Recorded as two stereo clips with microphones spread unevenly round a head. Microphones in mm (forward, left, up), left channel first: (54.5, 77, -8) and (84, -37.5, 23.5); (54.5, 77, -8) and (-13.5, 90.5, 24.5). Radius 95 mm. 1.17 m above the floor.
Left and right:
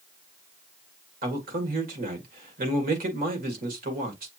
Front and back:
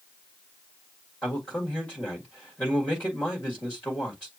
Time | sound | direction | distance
1.2 | a man speaking | 90° right | 1.7 m